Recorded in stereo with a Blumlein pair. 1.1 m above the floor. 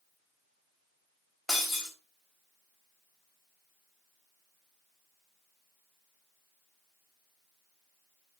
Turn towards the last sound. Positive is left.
turn(degrees=5)